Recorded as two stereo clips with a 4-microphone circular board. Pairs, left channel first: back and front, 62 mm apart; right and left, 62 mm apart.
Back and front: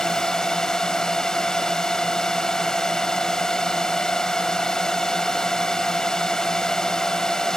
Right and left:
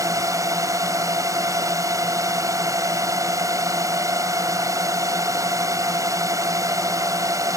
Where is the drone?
100° left.